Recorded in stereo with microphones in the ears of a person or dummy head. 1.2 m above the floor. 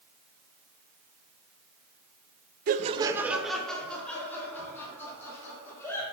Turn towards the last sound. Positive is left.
turn(degrees=15)  # may be behind; listen again after turning